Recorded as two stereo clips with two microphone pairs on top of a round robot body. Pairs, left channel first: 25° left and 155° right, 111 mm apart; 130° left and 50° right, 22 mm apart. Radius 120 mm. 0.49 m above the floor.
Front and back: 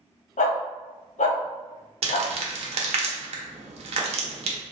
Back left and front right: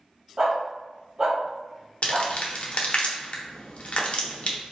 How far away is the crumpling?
About 0.8 m.